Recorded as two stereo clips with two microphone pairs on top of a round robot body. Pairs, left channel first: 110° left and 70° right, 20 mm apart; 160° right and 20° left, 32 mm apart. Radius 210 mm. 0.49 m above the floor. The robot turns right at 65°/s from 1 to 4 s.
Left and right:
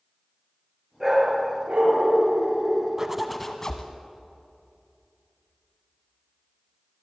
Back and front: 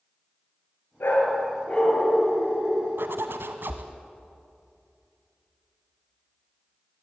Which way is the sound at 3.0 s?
Straight ahead.